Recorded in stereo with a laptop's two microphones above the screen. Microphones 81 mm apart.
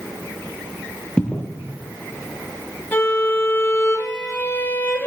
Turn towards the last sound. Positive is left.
turn(degrees=25)  # may be behind; listen again after turning